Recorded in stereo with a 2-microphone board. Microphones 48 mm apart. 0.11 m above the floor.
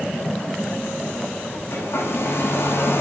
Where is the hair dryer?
65° left (ahead or behind), 6 m.